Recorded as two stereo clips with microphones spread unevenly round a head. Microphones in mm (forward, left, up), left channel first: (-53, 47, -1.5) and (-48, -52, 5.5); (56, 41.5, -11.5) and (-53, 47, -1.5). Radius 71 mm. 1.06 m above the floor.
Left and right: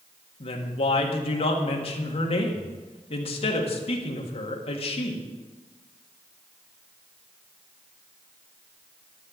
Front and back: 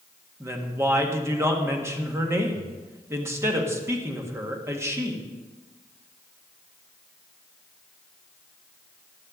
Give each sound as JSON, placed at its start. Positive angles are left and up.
{"t": 0.4, "sound": "a woman speaking", "azimuth_deg": 110, "distance_m": 1.8}